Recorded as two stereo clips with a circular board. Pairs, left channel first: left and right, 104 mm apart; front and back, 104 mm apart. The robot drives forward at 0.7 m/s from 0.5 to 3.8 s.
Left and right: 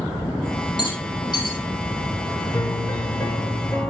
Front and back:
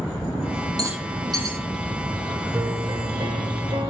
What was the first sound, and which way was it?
A rattle, 130° left.